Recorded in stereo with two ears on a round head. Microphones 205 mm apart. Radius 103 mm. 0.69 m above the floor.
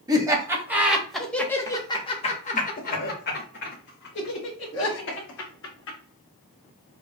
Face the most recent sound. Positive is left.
turn(degrees=55)  # may be behind; listen again after turning